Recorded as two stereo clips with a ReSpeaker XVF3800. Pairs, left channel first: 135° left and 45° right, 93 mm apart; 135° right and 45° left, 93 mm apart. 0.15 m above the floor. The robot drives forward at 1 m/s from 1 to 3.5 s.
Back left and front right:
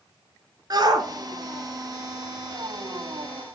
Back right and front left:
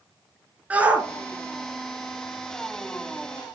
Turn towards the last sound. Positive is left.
turn(degrees=-140)